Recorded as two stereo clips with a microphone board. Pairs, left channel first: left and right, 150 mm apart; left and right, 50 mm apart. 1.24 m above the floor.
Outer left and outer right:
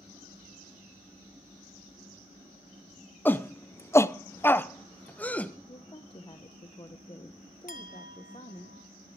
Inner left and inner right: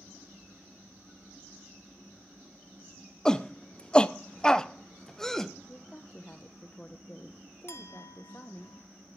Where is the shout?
10° left (ahead or behind), 0.5 m.